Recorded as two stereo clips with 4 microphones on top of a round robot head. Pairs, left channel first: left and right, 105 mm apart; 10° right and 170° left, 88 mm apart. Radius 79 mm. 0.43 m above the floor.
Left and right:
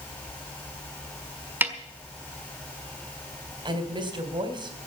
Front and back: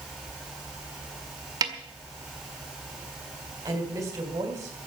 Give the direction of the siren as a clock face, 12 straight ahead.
I don't hear a siren.